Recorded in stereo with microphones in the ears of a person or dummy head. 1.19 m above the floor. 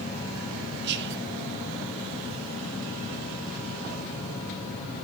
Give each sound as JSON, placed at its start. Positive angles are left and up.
{"t": 0.8, "sound": "whispering", "side_deg": -60, "distance_m": 1.6}